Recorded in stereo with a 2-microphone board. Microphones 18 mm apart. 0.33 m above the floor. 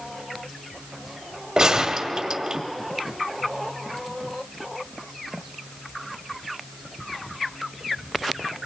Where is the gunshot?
45° right (ahead or behind), 0.9 m.